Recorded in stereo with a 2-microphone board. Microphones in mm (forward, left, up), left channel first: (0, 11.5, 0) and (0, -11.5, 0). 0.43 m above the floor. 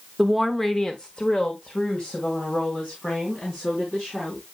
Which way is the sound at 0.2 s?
10° right (ahead or behind).